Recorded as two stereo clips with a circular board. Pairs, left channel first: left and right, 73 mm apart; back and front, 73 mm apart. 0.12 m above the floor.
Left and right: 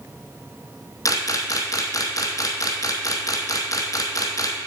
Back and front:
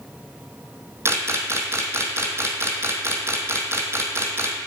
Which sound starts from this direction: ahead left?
A camera shutter, at 1.1 s.